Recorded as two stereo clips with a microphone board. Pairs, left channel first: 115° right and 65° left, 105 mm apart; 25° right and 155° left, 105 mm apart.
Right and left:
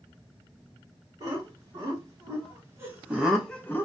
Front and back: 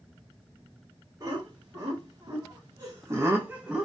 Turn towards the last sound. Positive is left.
turn(degrees=-115)